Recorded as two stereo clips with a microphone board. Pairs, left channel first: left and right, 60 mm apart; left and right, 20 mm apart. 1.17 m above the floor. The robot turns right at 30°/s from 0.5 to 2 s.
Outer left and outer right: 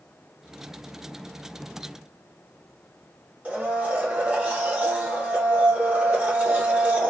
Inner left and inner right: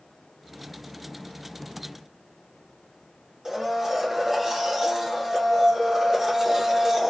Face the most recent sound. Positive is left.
turn(degrees=-20)  # may be behind; listen again after turning